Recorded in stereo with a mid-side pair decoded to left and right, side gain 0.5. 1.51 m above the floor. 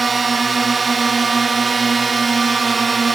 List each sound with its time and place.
0.0 s a drone: 35° right